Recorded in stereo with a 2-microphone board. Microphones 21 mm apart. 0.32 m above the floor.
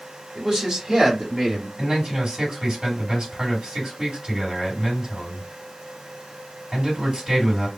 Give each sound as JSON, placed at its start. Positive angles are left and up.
{"t": 0.3, "sound": "a man speaking", "side_deg": -40, "distance_m": 1.7}
{"t": 1.8, "sound": "a man speaking", "side_deg": -50, "distance_m": 2.0}